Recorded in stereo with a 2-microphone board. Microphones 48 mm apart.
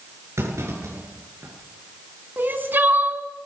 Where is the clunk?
85° right, 9 m.